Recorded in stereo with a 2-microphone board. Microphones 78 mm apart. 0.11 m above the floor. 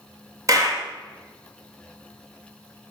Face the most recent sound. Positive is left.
turn(degrees=-45)  # may be behind; listen again after turning